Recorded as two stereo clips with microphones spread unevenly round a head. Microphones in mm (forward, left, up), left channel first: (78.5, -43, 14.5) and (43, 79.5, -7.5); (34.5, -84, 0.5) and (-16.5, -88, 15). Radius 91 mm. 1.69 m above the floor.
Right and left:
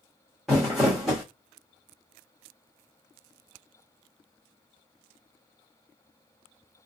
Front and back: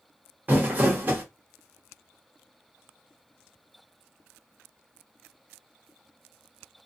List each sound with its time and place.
0.5 s crumpling: 155° right, 1.0 m